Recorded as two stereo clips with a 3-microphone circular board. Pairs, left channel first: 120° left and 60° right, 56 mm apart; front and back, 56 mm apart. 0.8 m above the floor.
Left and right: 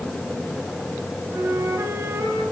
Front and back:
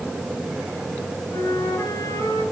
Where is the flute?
15° right, 6.5 m.